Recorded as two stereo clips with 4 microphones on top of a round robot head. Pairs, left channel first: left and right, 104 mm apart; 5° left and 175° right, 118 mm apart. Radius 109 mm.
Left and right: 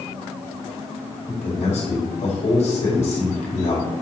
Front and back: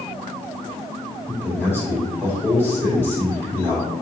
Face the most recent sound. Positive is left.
turn(degrees=80)